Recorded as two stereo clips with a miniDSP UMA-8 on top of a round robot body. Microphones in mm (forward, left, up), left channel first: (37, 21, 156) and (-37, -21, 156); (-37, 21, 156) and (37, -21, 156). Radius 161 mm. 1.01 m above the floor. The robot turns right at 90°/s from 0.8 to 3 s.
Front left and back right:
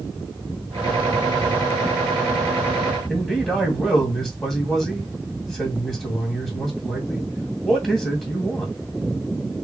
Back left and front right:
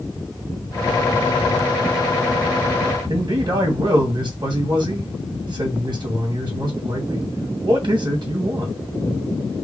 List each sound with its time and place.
3.1 s a man speaking: 60° right, 2.5 m